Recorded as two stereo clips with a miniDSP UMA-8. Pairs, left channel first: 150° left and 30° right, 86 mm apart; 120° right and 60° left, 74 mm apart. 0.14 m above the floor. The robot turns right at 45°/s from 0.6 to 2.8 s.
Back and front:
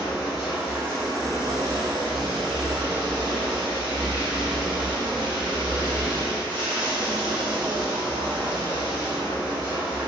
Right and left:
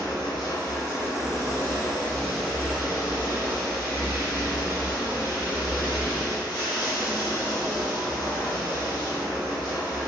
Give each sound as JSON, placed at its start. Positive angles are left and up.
{"t": 0.0, "sound": "running water", "azimuth_deg": -110, "distance_m": 1.8}